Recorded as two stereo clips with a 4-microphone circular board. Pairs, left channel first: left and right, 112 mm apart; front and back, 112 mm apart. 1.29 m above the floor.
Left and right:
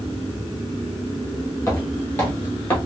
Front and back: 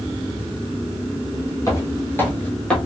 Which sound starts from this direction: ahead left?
Footsteps, at 1.7 s.